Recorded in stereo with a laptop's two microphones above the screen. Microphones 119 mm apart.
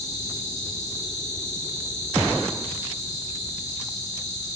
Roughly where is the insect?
Left.